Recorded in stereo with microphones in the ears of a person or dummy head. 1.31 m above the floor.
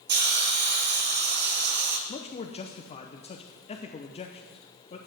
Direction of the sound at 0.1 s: 45° right (ahead or behind).